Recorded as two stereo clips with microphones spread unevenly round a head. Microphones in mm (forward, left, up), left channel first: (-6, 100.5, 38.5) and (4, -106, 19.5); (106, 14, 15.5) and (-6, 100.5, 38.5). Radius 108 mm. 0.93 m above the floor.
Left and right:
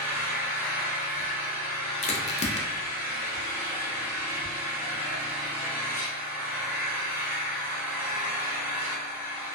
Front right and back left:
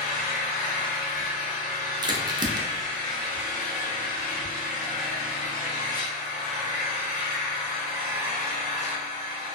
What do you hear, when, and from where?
0.0 s an engine running: 5° right, 1.0 m
2.0 s a crack: 105° left, 0.5 m